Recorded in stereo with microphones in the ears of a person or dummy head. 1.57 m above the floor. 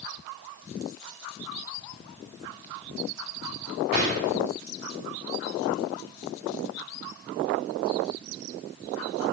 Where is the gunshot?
40° right (ahead or behind), 1.6 m.